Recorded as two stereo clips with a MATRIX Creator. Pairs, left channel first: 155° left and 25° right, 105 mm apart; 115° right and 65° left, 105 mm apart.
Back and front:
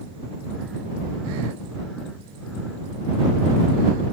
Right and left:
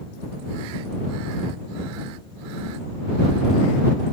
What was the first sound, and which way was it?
Only background noise.